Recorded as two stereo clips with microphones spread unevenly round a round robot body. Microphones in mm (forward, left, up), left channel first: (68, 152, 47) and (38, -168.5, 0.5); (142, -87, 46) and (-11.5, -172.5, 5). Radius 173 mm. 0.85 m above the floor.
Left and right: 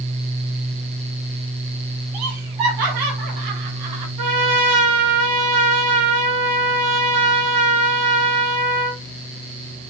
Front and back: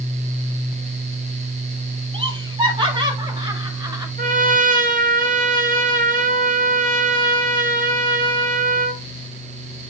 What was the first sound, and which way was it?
Laughter, 95° right.